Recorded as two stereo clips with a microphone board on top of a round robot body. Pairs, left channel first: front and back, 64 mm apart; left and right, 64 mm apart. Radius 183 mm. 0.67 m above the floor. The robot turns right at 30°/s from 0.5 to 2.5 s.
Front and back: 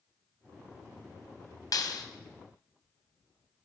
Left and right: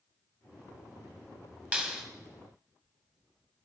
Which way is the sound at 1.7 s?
20° right.